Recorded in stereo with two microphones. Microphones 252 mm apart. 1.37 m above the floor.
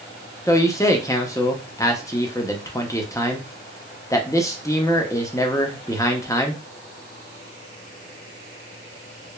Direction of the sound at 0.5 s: 10° left (ahead or behind).